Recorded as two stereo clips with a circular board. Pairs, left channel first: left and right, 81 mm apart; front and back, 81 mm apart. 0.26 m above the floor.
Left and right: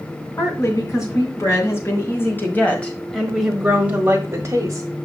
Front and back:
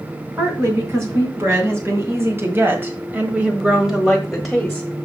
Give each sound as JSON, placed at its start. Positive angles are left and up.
{"t": 0.4, "sound": "a woman speaking", "azimuth_deg": 130, "distance_m": 3.0}